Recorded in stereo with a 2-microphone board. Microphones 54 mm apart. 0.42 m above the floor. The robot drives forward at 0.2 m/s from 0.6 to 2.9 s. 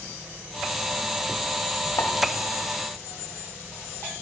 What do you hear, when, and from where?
2.0 s a pop: 60° left (ahead or behind), 0.7 m; by 2.2 s 55° left (ahead or behind), 0.7 m